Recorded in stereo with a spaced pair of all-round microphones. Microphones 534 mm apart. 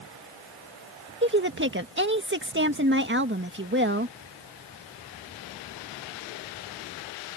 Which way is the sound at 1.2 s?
20° right (ahead or behind).